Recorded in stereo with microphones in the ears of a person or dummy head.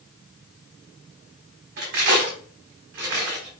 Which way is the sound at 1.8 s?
60° right (ahead or behind).